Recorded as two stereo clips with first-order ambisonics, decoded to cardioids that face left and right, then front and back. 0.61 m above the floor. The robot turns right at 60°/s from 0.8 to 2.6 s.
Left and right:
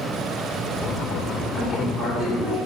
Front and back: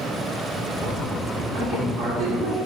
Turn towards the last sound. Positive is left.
turn(degrees=-150)